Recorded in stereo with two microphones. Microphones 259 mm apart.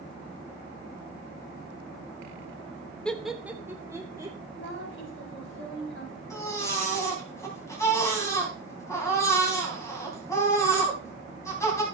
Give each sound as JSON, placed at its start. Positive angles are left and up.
{"t": 3.0, "sound": "laughter", "side_deg": 5, "distance_m": 1.0}
{"t": 4.5, "sound": "a woman speaking", "side_deg": 50, "distance_m": 5.0}
{"t": 6.3, "sound": "a baby crying", "side_deg": 10, "distance_m": 3.5}